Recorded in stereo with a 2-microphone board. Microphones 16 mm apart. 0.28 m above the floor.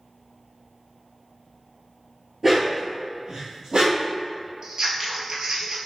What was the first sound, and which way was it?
A dog barking, 15° right (ahead or behind).